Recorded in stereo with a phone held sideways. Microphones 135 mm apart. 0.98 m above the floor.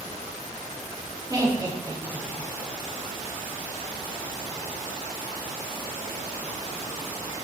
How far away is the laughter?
About 2.5 m.